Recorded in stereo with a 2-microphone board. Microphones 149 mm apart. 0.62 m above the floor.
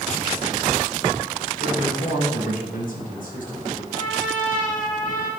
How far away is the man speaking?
About 4.5 m.